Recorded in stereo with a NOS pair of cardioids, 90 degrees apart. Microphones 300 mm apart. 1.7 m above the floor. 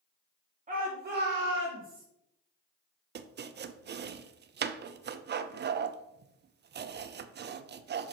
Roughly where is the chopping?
Ahead right.